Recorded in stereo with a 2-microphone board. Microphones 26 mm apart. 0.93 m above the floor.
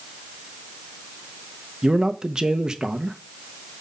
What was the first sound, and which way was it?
A man speaking, 30° right (ahead or behind).